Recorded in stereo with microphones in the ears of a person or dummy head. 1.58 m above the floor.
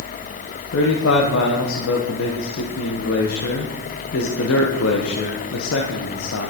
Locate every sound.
0.7 s a man speaking: 75° left (ahead or behind), 1.4 m